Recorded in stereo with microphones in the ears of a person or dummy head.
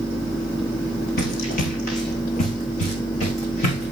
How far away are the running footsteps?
About 2.5 m.